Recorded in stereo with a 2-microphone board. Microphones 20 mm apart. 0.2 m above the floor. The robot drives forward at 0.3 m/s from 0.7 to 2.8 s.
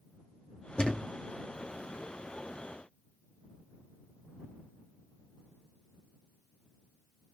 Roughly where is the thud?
Left.